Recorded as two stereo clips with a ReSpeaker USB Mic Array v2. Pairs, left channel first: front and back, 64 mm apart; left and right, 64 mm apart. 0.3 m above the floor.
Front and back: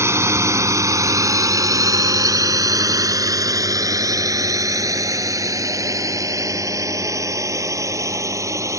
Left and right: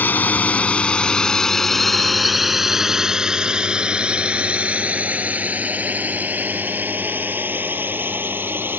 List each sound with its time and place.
0.0 s a drone: 145° left; by 8.8 s 145° right